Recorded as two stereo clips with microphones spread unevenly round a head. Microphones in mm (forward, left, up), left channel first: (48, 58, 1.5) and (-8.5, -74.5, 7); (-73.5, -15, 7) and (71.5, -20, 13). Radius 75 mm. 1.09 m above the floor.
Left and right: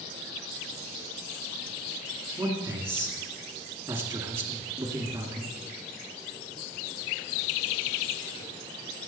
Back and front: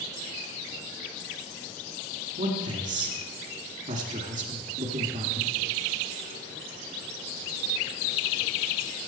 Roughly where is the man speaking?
Ahead right.